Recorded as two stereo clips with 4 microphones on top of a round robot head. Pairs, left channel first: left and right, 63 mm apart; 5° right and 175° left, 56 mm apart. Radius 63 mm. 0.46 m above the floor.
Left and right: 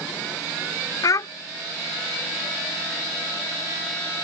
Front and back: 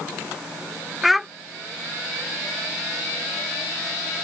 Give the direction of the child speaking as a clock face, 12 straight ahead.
9 o'clock.